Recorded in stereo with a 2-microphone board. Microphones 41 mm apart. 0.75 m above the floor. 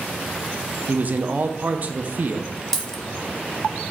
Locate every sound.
0.9 s a man speaking: 40° right (ahead or behind), 0.5 m
2.7 s a dropped coin: 10° left (ahead or behind), 0.6 m